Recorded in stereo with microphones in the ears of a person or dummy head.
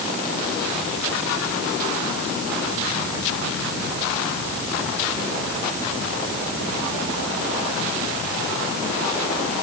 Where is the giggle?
I don't hear a giggle.